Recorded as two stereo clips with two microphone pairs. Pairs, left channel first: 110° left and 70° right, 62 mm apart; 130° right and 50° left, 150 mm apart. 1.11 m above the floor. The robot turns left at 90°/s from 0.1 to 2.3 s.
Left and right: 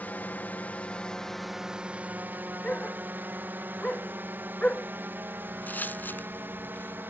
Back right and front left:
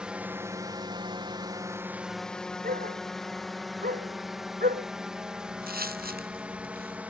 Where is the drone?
125° left; by 7.1 s 30° right.